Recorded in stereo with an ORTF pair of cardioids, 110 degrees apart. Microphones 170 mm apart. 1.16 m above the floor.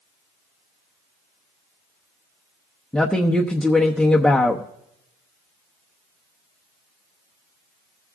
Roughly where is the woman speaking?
Ahead.